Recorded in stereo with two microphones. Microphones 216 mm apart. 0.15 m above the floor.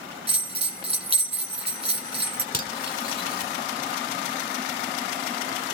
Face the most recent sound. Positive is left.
turn(degrees=45)  # may be behind; listen again after turning